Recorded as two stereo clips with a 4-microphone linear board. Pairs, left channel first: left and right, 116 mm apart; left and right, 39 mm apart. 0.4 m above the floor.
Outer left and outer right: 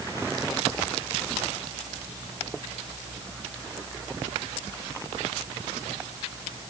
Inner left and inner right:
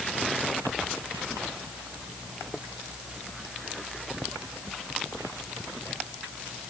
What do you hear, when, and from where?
Only background noise.